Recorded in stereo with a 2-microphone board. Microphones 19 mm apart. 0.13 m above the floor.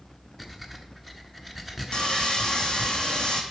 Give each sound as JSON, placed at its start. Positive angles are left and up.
{"t": 0.4, "sound": "breathing", "side_deg": 10, "distance_m": 0.9}
{"t": 1.9, "sound": "sawing", "side_deg": 60, "distance_m": 1.4}